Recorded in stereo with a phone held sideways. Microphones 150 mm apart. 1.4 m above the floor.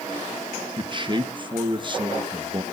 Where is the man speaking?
35° right (ahead or behind), 1.5 m.